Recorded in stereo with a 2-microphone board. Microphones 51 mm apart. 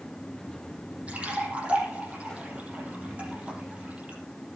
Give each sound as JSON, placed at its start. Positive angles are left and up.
{"t": 1.1, "sound": "a splash", "side_deg": -25, "distance_m": 5.5}